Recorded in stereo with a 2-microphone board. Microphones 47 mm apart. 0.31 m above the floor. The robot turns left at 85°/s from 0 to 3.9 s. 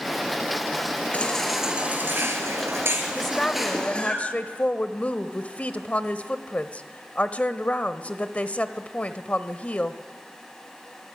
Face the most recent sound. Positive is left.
turn(degrees=110)